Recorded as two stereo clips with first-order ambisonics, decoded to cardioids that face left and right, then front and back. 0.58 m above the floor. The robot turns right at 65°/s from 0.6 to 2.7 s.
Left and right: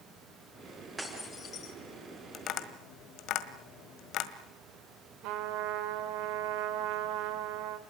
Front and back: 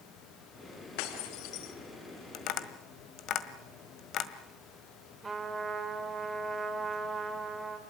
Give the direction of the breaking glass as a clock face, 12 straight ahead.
12 o'clock.